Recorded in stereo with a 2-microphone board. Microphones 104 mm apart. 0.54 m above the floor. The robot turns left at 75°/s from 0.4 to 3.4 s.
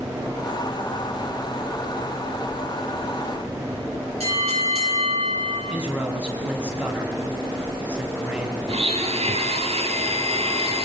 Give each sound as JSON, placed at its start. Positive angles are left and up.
{"t": 4.2, "sound": "a bell", "side_deg": -85, "distance_m": 9.5}
{"t": 5.7, "sound": "a man speaking", "side_deg": -10, "distance_m": 4.0}
{"t": 8.7, "sound": "a blender", "side_deg": -75, "distance_m": 2.5}